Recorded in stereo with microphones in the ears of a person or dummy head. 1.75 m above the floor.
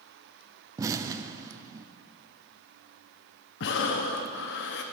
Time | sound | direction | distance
0.8 | an explosion | 15° right (ahead or behind) | 0.7 m
3.6 | breathing | 55° left (ahead or behind) | 0.9 m